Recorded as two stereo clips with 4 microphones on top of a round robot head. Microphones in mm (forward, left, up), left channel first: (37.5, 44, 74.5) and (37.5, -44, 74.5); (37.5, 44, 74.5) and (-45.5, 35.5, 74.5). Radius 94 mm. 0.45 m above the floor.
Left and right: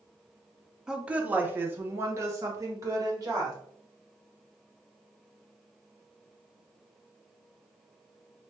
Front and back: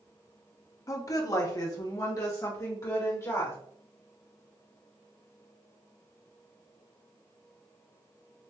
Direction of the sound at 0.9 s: 10° right.